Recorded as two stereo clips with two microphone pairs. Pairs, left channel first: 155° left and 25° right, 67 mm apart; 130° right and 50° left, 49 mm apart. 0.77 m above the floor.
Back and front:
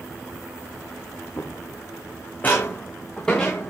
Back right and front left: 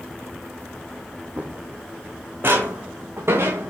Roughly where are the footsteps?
Behind left.